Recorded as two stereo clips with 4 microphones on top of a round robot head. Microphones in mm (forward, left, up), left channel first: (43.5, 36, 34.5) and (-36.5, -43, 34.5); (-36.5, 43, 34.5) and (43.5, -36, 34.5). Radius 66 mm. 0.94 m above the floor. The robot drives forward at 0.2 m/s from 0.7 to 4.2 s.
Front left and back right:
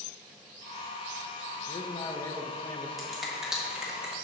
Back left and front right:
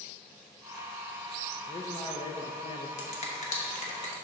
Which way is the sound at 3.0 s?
135° left.